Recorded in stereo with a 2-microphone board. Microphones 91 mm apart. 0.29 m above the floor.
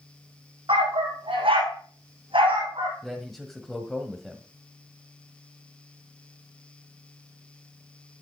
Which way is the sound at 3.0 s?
Centre (ahead or behind).